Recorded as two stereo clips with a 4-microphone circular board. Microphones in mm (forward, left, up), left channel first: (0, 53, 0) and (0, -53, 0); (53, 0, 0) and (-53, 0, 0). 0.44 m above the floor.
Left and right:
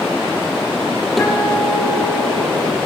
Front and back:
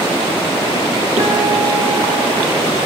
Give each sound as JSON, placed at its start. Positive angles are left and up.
{"t": 1.2, "sound": "a guitar", "azimuth_deg": 180, "distance_m": 6.5}